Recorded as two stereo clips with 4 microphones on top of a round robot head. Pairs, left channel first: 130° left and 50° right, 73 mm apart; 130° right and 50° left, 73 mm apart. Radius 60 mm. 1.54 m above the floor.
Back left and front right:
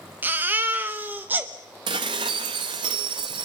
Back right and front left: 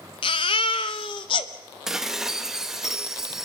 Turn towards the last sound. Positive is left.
turn(degrees=-30)